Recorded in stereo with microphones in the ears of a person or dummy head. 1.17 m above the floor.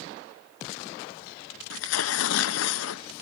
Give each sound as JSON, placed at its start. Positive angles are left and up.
{"t": 1.7, "sound": "tearing paper", "side_deg": 80, "distance_m": 0.7}